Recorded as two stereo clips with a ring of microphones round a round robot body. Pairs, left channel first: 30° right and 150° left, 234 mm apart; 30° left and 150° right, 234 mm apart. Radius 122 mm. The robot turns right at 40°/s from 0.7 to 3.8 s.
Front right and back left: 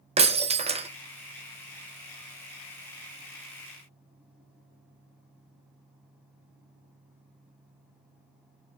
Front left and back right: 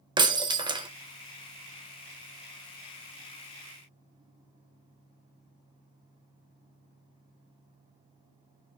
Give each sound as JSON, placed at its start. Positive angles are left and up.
{"t": 0.2, "sound": "breaking glass", "azimuth_deg": 165, "distance_m": 0.7}